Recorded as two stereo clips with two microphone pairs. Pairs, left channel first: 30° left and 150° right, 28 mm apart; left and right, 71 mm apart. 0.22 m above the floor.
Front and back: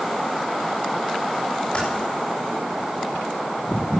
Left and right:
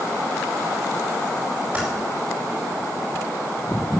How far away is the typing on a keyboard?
About 8 m.